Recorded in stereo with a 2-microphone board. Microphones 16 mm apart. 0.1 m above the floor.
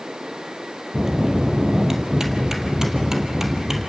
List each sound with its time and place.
0.9 s a bell: 30° right (ahead or behind), 2.5 m